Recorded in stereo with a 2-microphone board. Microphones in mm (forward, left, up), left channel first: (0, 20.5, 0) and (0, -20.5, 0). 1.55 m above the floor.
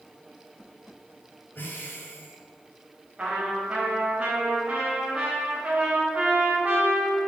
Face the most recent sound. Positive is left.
turn(degrees=-25)  # may be behind; listen again after turning